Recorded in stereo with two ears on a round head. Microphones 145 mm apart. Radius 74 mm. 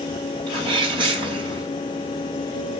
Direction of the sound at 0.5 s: 30° right (ahead or behind).